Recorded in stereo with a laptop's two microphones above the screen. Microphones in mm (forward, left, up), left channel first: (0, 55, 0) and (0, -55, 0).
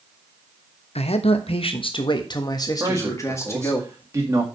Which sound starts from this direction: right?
A man speaking, at 2.8 s.